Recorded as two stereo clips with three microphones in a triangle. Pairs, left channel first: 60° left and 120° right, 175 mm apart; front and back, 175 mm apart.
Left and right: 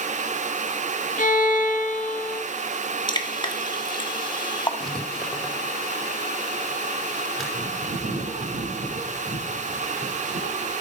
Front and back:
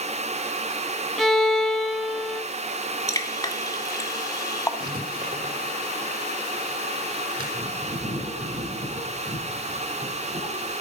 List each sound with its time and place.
1.2 s a violin: 90° left, 1.8 m
3.1 s dripping: 45° left, 1.8 m
4.8 s writing: 150° left, 4.5 m
7.5 s a bird: 135° right, 10 m